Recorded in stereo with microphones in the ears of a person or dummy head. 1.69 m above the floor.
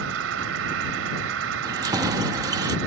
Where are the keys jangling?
20° right (ahead or behind).